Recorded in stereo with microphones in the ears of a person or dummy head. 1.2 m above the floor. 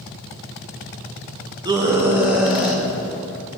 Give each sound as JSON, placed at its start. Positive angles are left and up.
{"t": 1.6, "sound": "a scream", "side_deg": -20, "distance_m": 1.0}